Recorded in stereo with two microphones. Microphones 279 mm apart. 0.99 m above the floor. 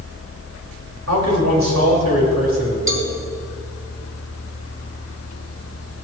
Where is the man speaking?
75° right (ahead or behind), 5.5 m; by 2.8 s 65° right (ahead or behind), 5.5 m.